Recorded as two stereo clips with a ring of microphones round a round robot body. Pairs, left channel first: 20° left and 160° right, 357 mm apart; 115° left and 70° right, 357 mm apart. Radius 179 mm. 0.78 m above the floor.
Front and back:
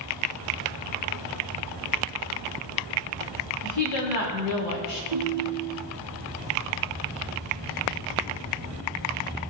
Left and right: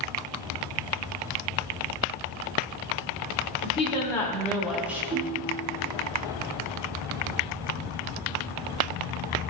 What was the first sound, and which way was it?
A woman speaking, 40° left.